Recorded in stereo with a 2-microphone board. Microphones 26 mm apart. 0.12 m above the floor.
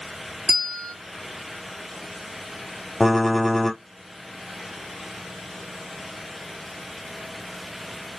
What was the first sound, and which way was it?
A bell, 20° left (ahead or behind).